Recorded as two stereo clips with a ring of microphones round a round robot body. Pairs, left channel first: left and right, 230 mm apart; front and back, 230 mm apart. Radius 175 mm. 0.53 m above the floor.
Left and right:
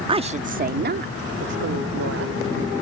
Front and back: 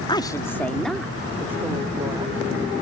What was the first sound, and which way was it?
A woman speaking, 50° right.